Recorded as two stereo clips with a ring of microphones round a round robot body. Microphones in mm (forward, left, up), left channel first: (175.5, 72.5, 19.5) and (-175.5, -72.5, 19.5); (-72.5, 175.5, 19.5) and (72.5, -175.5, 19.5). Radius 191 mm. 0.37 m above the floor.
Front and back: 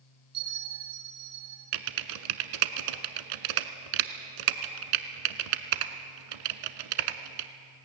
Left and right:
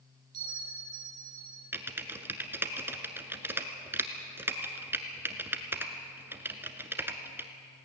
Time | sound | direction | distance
0.3 | a bell | 105° right | 5.5 m
1.7 | typing on a keyboard | 150° right | 1.2 m